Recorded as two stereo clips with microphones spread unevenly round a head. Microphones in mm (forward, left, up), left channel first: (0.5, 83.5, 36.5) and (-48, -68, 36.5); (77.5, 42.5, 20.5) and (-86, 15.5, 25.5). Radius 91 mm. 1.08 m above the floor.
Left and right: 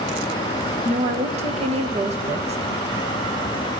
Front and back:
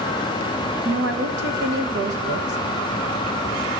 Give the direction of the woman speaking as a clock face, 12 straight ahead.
5 o'clock.